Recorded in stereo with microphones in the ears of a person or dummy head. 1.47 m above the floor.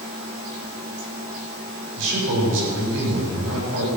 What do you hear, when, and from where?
2.0 s a man speaking: 75° right (ahead or behind), 7.5 m